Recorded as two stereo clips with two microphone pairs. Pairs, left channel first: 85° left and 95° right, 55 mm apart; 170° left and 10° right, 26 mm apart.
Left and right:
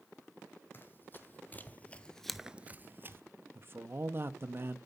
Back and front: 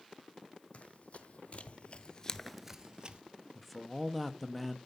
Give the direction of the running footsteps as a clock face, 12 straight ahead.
7 o'clock.